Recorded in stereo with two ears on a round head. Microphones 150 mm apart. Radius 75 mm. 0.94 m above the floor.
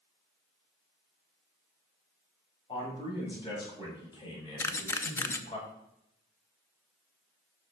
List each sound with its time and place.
2.7 s a man speaking: 30° left (ahead or behind), 6 m; by 5.6 s 35° left (ahead or behind), 3.5 m
4.6 s a camera shutter: 15° left (ahead or behind), 0.7 m